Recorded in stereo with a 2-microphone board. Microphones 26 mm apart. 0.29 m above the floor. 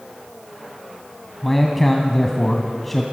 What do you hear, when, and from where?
1.4 s a man speaking: 5° left (ahead or behind), 1.8 m